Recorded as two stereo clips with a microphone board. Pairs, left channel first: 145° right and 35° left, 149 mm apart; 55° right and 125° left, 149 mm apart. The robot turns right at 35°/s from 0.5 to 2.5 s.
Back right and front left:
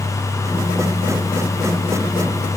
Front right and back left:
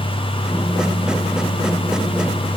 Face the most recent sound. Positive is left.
No sound to turn to.